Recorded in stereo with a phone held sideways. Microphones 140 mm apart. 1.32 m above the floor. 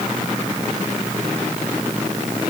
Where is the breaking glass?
I don't hear breaking glass.